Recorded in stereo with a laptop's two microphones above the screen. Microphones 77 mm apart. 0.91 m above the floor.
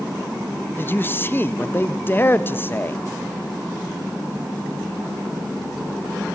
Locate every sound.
0.8 s a man speaking: 25° left (ahead or behind), 0.8 m